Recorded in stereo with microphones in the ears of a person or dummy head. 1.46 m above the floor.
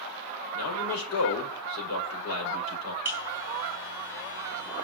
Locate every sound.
0.5 s a man speaking: 85° left, 5.5 m
3.0 s a buzzer: 15° right (ahead or behind), 2 m